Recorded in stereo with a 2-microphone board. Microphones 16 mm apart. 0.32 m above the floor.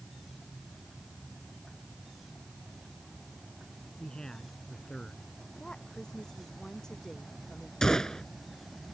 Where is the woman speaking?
45° left (ahead or behind).